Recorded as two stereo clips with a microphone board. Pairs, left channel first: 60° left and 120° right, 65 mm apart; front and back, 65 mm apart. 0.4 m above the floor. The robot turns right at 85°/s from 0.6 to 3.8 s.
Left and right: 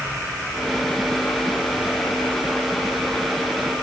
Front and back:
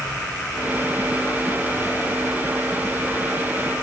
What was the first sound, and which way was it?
An insect, 40° right.